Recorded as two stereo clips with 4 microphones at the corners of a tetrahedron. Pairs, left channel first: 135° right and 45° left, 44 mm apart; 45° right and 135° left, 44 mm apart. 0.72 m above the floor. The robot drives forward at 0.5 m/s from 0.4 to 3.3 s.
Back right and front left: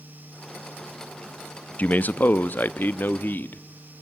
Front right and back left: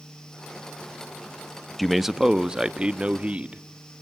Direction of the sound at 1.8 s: 130° right.